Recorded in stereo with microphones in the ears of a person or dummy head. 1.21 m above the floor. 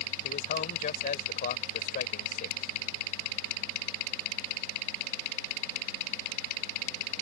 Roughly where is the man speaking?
Left.